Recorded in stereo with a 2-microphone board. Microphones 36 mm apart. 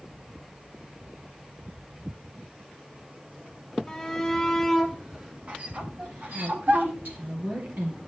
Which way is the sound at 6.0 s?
60° right (ahead or behind).